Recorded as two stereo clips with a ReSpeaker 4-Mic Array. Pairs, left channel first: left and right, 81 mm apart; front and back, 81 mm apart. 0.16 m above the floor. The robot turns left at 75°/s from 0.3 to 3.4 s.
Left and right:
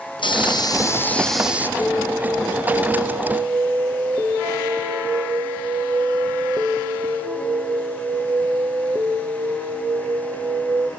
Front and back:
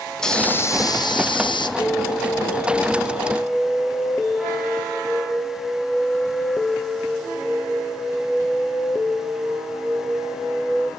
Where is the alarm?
40° left, 2.5 m; by 10.9 s 80° right, 2.5 m.